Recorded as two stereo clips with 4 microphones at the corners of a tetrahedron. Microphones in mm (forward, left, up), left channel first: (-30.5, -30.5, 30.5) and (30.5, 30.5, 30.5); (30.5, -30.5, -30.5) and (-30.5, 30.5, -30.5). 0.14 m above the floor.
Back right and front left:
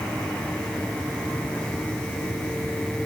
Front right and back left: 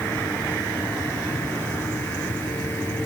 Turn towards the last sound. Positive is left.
No sound to turn to.